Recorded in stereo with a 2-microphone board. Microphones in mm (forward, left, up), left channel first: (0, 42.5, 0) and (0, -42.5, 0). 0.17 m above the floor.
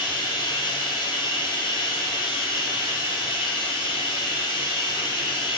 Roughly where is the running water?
Left.